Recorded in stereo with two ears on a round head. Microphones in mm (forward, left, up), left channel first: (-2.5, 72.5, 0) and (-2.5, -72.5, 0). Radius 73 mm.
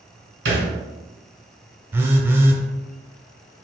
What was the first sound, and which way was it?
A thud, 75° right (ahead or behind).